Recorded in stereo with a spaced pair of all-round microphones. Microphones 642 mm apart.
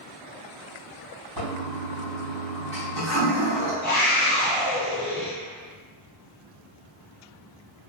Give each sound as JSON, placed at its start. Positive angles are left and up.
{"t": 1.4, "sound": "a toilet flushing", "side_deg": -35, "distance_m": 2.0}
{"t": 3.8, "sound": "a scream", "side_deg": 15, "distance_m": 1.4}